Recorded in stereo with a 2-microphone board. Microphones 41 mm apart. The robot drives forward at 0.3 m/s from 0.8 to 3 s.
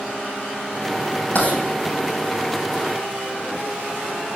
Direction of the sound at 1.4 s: 40° left (ahead or behind).